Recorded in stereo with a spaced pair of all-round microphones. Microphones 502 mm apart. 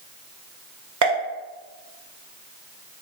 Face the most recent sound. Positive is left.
turn(degrees=-40)  # may be behind; listen again after turning